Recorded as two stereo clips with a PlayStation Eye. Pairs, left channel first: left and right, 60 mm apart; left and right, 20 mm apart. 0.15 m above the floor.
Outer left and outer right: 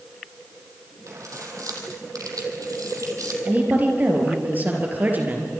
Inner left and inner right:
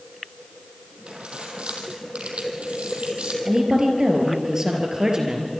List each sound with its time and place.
1.1 s keys jangling: 60° right (ahead or behind), 3.5 m; by 3.4 s 65° right (ahead or behind), 3.5 m
3.5 s a woman speaking: 30° right (ahead or behind), 4 m